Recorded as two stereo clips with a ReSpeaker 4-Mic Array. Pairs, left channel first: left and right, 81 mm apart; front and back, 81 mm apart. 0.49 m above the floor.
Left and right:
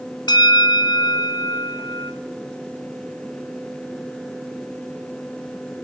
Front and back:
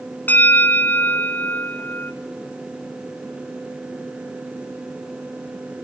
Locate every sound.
0.3 s a bell: 65° left, 1.1 m